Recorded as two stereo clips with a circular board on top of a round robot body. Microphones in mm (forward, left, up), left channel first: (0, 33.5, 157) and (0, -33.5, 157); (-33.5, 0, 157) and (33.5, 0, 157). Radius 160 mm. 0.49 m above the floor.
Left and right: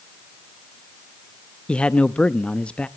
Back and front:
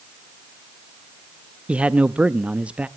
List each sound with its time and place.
1.7 s a man speaking: 40° left, 0.8 m